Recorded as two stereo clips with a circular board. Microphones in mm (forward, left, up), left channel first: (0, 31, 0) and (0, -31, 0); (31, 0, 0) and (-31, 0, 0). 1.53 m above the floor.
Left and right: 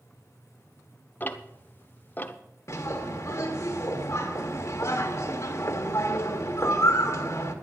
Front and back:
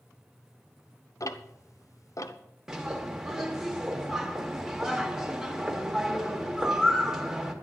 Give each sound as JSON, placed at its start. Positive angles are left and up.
{"t": 1.2, "sound": "ticking", "azimuth_deg": 30, "distance_m": 0.8}
{"t": 2.7, "sound": "a bird", "azimuth_deg": 100, "distance_m": 1.6}